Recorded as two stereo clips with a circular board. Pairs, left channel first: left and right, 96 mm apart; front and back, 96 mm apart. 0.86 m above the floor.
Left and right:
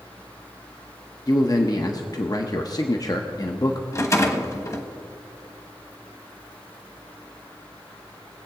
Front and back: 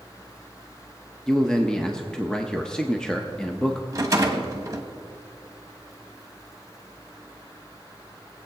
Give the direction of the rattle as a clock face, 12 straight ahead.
8 o'clock.